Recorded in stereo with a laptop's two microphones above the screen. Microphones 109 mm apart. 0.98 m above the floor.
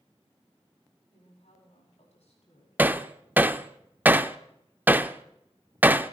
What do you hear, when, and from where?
1.1 s a woman speaking: 80° left, 7.5 m; by 2.7 s 75° left (ahead or behind), 7.5 m
2.8 s hammering: 15° right (ahead or behind), 0.8 m